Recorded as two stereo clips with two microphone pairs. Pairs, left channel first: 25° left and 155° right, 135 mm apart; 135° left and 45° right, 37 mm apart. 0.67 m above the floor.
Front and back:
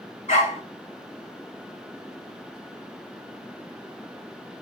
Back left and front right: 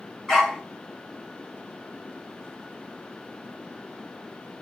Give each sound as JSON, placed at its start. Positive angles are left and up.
{"t": 0.3, "sound": "a dog barking", "azimuth_deg": 50, "distance_m": 1.5}